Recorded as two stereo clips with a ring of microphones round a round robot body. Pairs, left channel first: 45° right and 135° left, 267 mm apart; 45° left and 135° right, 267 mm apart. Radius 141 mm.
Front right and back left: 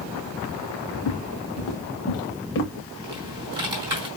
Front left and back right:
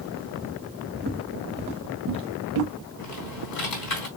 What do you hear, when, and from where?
0.9 s footsteps: 75° right, 2.5 m; by 2.7 s 95° right, 2.5 m
3.0 s typing on a keyboard: 60° left, 3.5 m